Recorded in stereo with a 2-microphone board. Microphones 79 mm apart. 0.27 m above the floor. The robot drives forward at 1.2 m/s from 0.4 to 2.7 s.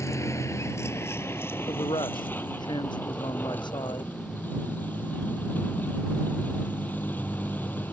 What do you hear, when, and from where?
0.0 s a vehicle: 40° left (ahead or behind); by 7.9 s 25° left (ahead or behind)
1.7 s a man speaking: 80° left; by 4.1 s 75° left (ahead or behind)